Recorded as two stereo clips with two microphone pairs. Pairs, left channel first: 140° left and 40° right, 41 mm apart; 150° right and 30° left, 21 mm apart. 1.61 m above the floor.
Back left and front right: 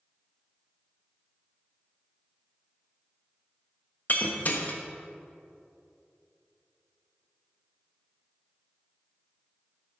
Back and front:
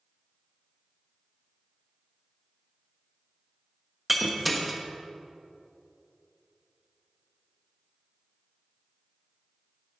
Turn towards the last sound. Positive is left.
turn(degrees=115)